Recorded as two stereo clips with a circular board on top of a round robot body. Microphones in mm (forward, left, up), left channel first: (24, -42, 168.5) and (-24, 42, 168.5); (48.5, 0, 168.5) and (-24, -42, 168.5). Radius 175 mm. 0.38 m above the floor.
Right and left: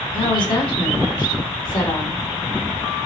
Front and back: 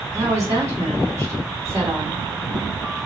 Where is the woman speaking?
100° right, 3 m.